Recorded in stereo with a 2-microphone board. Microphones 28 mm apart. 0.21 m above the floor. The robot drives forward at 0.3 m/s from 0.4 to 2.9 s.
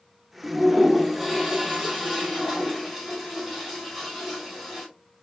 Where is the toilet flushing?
5° right (ahead or behind), 1.2 m; by 4.9 s centre (ahead or behind), 2.0 m.